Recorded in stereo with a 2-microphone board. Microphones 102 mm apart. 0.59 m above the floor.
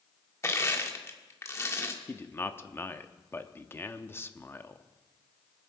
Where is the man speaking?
20° left (ahead or behind), 0.7 m.